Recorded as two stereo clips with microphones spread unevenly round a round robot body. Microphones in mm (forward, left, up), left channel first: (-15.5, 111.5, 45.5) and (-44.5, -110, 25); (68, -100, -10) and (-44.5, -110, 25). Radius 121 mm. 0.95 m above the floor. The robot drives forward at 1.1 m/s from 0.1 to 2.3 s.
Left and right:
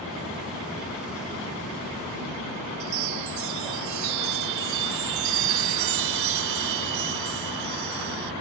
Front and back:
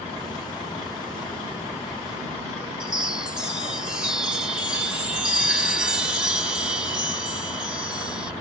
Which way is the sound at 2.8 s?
95° right.